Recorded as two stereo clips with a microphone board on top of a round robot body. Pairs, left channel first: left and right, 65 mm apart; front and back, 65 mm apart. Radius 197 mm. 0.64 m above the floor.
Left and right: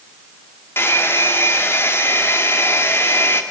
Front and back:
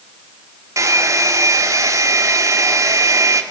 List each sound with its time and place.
0.8 s a hair dryer: 145° left, 2.5 m